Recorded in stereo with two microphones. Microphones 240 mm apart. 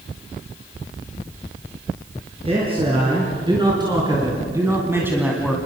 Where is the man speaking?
25° right (ahead or behind), 5 m; by 5.6 s 5° right (ahead or behind), 2.5 m.